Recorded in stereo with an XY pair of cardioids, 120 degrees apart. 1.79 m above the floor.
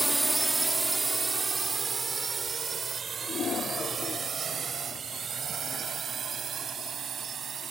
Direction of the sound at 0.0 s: 5° right.